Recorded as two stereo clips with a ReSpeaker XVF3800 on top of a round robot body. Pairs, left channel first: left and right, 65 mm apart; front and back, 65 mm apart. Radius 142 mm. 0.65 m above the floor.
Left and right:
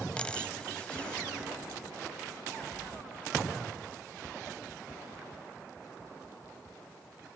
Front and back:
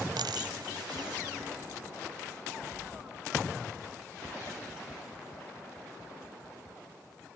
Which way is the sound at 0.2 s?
165° left.